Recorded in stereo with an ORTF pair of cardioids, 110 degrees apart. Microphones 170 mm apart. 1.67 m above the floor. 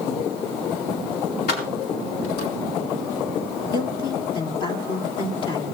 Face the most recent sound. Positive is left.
turn(degrees=30)